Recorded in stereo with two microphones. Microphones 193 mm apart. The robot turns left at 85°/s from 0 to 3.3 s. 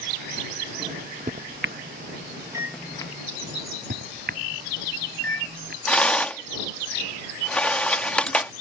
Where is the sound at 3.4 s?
60° right (ahead or behind).